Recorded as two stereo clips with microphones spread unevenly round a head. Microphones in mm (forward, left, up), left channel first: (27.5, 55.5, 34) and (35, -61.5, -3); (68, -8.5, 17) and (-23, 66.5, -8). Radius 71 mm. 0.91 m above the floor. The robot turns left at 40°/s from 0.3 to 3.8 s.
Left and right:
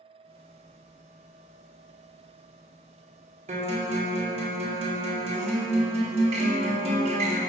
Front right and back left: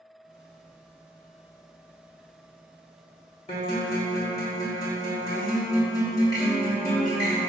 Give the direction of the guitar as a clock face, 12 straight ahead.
3 o'clock.